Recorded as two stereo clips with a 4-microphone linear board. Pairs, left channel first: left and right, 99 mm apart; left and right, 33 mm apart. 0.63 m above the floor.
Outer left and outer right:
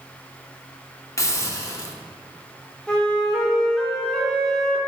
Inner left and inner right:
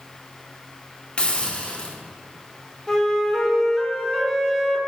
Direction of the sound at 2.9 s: 10° left (ahead or behind).